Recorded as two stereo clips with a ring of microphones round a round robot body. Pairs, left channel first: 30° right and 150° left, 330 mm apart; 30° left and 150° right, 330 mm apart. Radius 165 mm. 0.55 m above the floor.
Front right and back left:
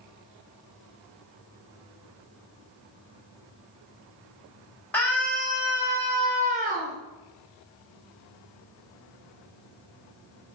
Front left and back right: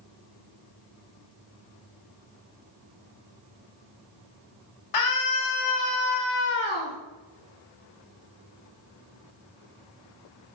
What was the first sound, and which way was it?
A scream, 55° left.